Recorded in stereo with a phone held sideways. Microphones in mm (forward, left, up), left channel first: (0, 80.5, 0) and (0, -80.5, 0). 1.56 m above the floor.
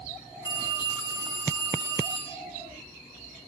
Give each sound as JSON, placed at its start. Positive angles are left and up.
{"t": 0.5, "sound": "a phone ringing", "side_deg": -20, "distance_m": 5.0}